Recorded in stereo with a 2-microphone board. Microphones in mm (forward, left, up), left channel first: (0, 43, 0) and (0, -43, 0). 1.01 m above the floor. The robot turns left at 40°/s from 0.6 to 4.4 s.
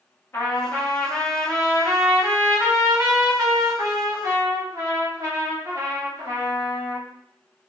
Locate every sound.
0.3 s a trumpet: 45° left, 1.0 m; by 7.0 s 110° right, 1.0 m